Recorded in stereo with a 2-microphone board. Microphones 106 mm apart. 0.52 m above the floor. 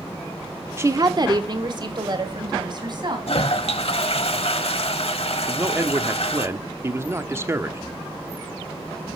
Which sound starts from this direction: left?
A toilet flushing, at 3.3 s.